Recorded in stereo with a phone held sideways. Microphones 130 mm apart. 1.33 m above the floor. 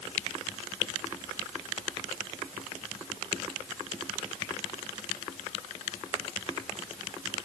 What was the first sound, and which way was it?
Only background noise.